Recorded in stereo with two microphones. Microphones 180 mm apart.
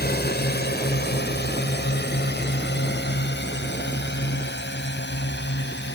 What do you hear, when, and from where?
0.0 s a drone: 60° left (ahead or behind); by 6.0 s 75° left (ahead or behind)